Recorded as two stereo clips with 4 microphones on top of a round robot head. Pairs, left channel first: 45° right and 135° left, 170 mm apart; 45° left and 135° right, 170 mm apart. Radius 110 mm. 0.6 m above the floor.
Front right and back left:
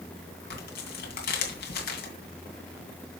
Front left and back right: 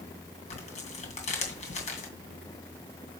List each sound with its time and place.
0.5 s tearing paper: 10° right, 2.5 m